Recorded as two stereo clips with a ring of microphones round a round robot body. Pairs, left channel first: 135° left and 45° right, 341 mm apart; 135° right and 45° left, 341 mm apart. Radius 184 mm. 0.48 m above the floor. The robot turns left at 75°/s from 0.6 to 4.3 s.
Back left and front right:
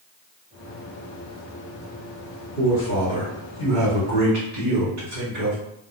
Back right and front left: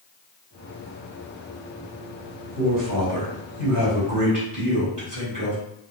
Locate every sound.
2.6 s a man speaking: 105° left, 1.5 m; by 5.6 s 25° right, 1.5 m